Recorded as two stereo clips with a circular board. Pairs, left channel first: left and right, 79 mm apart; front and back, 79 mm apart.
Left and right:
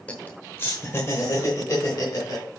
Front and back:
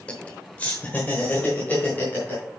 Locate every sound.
0.1 s laughter: 50° left, 0.8 m; by 2.4 s 60° left, 1.7 m